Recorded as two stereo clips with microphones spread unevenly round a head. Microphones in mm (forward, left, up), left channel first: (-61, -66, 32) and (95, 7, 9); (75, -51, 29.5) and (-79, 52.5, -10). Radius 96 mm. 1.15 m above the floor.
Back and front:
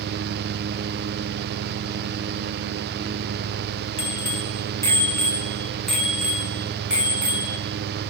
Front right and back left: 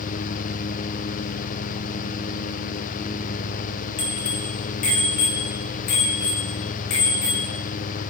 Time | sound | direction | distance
4.0 | a bicycle bell | 95° right | 2.5 m